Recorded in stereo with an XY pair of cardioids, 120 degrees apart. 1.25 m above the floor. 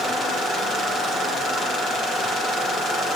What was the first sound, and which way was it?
Only background noise.